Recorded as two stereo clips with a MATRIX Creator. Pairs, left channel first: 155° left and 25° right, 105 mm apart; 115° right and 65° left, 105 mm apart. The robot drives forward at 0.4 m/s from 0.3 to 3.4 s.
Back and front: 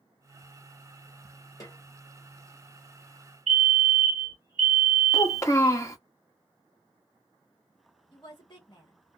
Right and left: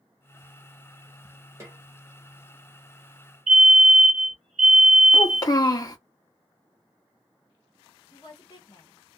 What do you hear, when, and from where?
1.6 s a snare drum: 120° left, 1.2 m; by 1.8 s 125° left, 1.3 m
3.5 s a fire alarm: 155° left, 1.7 m
5.1 s a child speaking: 150° right, 0.7 m
8.1 s a woman speaking: 160° right, 1.4 m